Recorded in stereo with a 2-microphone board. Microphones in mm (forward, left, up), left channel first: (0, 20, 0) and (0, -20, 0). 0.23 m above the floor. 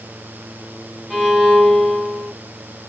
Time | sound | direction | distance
1.1 | a violin | 5° left (ahead or behind) | 1.6 m